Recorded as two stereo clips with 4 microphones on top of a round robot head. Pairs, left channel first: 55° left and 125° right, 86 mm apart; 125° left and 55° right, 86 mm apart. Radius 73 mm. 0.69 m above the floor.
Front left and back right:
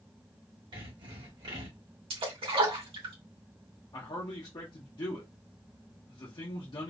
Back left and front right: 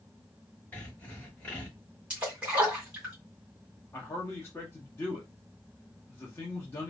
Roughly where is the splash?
Behind right.